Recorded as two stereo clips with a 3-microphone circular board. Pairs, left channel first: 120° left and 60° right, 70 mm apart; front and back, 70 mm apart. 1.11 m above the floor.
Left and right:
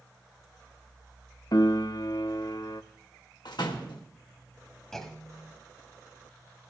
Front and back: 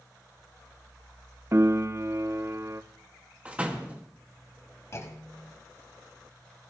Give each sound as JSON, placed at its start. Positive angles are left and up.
{"t": 1.5, "sound": "a piano", "azimuth_deg": 135, "distance_m": 0.6}
{"t": 3.5, "sound": "a door slam", "azimuth_deg": 110, "distance_m": 1.5}
{"t": 4.9, "sound": "a clunk", "azimuth_deg": 35, "distance_m": 1.5}